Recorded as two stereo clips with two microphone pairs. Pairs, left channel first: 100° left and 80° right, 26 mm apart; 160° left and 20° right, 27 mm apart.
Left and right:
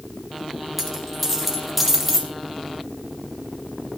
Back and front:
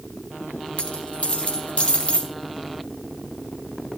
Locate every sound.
0.8 s a dropped coin: 170° right, 4 m